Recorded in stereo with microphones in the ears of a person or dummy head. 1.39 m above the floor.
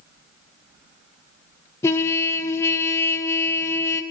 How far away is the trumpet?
About 0.8 m.